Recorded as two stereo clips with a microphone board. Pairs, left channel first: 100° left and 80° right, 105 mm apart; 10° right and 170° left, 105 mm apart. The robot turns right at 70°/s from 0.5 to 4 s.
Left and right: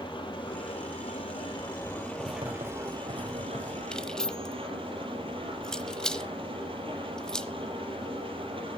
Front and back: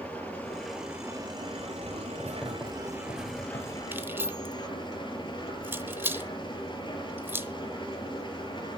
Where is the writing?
125° right, 4.5 m; by 3.8 s 10° right, 4.5 m.